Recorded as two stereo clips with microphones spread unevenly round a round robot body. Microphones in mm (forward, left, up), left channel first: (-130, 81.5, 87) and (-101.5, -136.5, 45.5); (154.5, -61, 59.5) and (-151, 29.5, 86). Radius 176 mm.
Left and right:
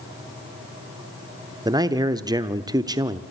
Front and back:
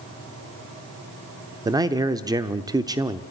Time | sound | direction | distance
1.6 | a man speaking | 120° right | 0.8 m